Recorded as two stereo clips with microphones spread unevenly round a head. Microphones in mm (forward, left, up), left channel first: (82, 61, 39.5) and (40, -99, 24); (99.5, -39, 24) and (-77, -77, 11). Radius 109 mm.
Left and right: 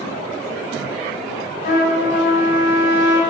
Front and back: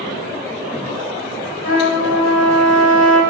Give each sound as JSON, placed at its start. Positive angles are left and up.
{"t": 1.6, "sound": "a trumpet", "azimuth_deg": 50, "distance_m": 3.5}